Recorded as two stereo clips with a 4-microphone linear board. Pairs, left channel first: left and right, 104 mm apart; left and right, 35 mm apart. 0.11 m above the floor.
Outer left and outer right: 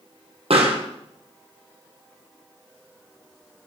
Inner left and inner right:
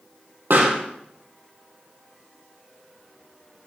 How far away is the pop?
About 2.5 m.